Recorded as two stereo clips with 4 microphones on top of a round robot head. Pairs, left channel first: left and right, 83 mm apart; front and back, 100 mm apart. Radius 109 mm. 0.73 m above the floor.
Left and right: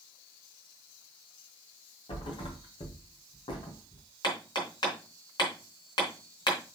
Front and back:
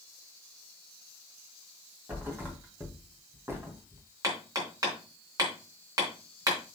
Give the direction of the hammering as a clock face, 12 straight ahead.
8 o'clock.